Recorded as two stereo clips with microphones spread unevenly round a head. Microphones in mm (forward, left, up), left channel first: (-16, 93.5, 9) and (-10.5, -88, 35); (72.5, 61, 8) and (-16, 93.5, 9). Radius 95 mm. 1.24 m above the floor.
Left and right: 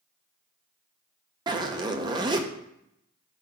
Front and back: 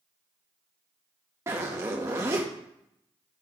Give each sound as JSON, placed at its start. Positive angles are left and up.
{"t": 1.5, "sound": "a zipper", "azimuth_deg": -140, "distance_m": 0.6}